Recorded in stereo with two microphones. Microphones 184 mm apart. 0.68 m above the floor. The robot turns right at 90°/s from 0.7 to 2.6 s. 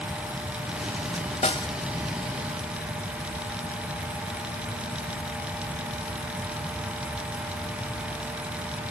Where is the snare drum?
40° left (ahead or behind); by 1.7 s 15° left (ahead or behind).